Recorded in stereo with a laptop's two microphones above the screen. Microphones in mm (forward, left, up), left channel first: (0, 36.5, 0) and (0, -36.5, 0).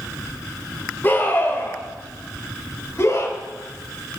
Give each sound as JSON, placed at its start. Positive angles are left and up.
{"t": 1.0, "sound": "a scream", "side_deg": 30, "distance_m": 4.0}